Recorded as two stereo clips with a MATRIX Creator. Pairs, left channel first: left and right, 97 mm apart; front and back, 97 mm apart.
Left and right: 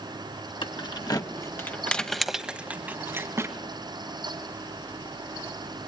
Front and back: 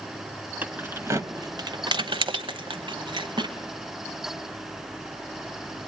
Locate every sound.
0.6 s keys jangling: 110° left, 1.3 m; by 3.5 s 145° right, 1.8 m